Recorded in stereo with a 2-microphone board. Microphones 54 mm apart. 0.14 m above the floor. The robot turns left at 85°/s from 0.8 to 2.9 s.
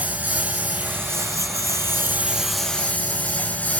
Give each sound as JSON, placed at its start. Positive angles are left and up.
{"t": 0.0, "sound": "a lawn mower", "azimuth_deg": -30}